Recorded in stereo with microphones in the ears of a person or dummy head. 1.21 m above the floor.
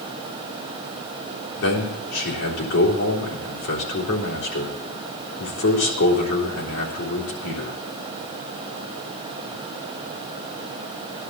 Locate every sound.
1.6 s a man speaking: 80° left, 3.5 m